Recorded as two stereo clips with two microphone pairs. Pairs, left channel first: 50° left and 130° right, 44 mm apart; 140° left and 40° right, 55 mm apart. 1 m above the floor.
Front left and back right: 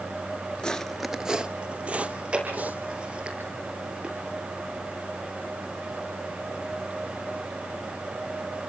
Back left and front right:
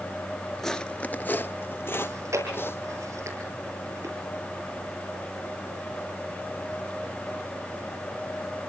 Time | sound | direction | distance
0.6 | footsteps | 60° left | 1.0 m
2.0 | chewing | 65° right | 10 m